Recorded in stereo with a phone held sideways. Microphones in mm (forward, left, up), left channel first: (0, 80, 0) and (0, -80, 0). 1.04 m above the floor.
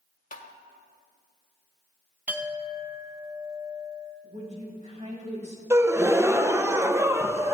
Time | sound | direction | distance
0.3 | tapping | 55° left (ahead or behind) | 1.2 m
2.3 | a clink | 10° right (ahead or behind) | 0.9 m
4.2 | a woman speaking | 45° right (ahead or behind) | 4.5 m
5.7 | a gasp | 15° right (ahead or behind) | 0.6 m